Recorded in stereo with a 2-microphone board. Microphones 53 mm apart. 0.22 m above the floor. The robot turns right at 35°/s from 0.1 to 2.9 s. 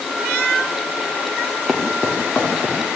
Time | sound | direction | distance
1.7 | footsteps | centre (ahead or behind) | 3.5 m